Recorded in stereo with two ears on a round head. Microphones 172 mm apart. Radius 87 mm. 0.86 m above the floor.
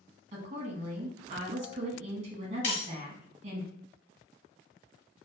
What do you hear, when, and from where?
0.3 s a woman speaking: 35° right (ahead or behind), 1.1 m
2.6 s breaking glass: 45° left (ahead or behind), 1.5 m